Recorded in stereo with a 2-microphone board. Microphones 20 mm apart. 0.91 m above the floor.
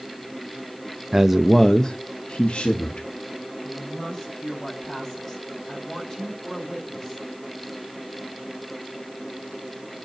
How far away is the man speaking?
About 0.8 m.